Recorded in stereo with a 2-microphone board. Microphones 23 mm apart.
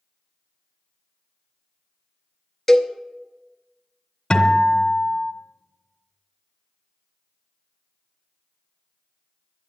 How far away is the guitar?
About 1.5 m.